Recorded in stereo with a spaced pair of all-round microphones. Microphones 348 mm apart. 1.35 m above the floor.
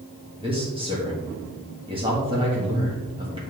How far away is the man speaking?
About 1.7 m.